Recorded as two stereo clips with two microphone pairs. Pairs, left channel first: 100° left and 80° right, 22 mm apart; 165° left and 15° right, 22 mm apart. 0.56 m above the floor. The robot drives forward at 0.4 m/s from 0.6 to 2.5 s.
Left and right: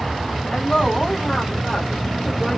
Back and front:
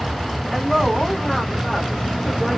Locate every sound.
0.5 s a woman speaking: 105° left, 2.0 m; by 2.6 s 125° left, 2.5 m